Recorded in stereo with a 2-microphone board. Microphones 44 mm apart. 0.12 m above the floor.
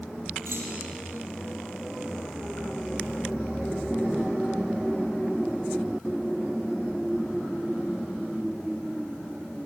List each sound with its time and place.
0.5 s a clunk: 65° right (ahead or behind), 4.5 m